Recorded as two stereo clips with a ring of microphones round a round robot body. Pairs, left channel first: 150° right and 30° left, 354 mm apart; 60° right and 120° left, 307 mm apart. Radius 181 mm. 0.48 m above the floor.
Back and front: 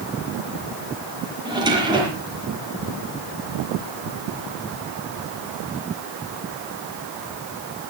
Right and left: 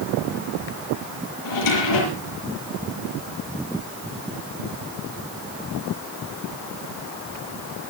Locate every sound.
1.4 s a drawer: 50° right, 6.5 m